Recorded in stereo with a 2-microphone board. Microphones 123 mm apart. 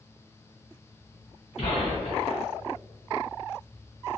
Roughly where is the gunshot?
Left.